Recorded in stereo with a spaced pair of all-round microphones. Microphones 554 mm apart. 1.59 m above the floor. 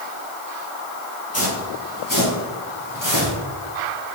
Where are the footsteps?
25° left (ahead or behind), 2.5 m; by 3.4 s 30° left (ahead or behind), 2.5 m.